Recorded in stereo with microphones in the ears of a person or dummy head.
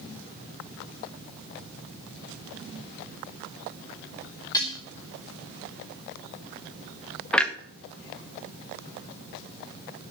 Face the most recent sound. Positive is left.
turn(degrees=5)  # may be behind; listen again after turning